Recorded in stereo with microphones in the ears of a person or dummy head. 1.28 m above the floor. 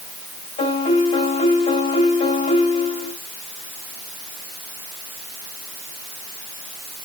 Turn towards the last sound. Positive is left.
turn(degrees=25)  # may be behind; listen again after turning